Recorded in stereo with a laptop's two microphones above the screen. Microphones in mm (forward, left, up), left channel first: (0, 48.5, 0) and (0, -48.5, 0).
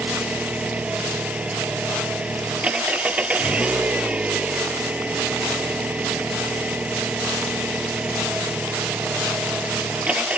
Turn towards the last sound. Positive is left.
turn(degrees=-15)  # may be behind; listen again after turning